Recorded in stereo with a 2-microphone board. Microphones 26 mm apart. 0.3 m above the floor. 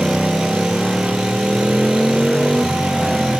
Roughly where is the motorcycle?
Centre.